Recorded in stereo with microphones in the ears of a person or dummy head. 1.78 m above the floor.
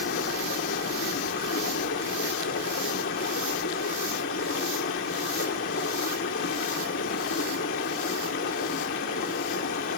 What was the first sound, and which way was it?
Running water, 50° left (ahead or behind).